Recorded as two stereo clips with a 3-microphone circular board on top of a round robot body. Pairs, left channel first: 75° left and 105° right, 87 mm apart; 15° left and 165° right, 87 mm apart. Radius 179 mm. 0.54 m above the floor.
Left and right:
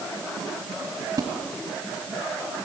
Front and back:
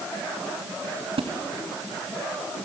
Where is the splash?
155° right, 2 m.